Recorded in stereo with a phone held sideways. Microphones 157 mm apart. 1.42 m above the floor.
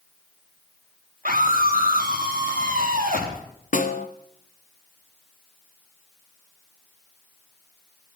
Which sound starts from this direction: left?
A snare drum, at 3.7 s.